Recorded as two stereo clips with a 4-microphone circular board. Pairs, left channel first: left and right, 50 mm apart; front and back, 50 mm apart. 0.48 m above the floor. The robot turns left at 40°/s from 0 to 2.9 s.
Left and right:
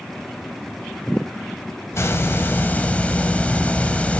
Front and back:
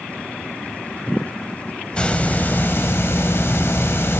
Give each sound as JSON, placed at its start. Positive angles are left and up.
{"t": 1.9, "sound": "a hiss", "azimuth_deg": 70, "distance_m": 1.4}